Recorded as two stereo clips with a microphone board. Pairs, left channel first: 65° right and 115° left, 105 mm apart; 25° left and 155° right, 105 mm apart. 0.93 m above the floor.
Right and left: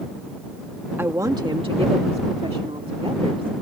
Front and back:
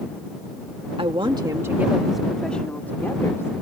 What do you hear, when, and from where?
1.0 s a woman speaking: straight behind; by 3.5 s 85° left